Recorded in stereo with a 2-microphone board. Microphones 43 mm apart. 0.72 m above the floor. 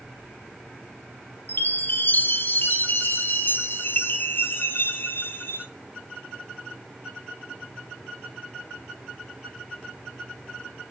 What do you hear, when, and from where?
1.5 s a chime: 50° left (ahead or behind), 1.2 m